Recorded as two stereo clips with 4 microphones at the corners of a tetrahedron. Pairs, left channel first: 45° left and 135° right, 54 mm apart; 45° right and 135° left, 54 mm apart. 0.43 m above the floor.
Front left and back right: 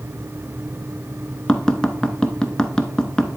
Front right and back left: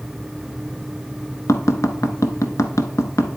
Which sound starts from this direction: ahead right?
Tapping, at 1.5 s.